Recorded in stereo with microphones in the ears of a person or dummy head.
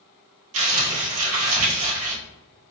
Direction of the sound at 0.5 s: 80° right.